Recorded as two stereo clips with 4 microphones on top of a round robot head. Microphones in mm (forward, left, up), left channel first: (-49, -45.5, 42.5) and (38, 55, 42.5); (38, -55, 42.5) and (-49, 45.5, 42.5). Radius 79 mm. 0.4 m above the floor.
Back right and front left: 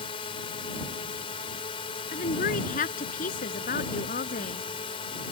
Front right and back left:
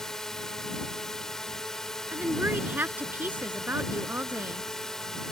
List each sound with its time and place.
0.0 s a drone: 135° right
2.1 s a woman speaking: 155° right